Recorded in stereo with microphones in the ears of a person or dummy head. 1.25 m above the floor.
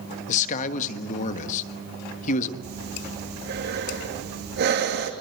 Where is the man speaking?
40° left (ahead or behind), 1.4 m.